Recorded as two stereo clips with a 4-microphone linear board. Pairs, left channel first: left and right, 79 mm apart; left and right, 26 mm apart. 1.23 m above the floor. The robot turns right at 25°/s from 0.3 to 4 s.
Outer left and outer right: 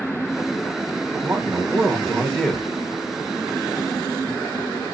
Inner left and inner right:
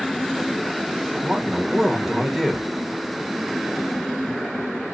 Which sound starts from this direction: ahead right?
A man speaking, at 1.2 s.